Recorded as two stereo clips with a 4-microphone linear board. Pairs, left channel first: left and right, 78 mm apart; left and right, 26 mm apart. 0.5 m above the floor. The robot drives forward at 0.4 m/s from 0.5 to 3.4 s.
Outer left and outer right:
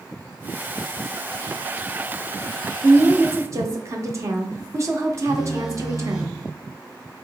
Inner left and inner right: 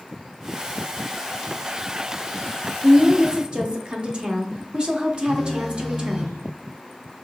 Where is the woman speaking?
40° right (ahead or behind), 0.9 m.